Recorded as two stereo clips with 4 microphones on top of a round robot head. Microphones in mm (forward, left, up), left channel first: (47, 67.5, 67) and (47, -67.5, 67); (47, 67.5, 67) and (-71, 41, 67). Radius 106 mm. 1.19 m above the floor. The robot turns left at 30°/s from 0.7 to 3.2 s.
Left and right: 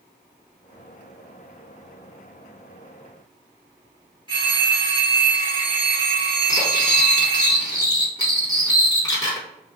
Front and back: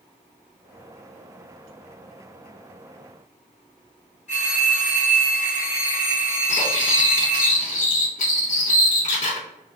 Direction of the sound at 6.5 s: 20° left.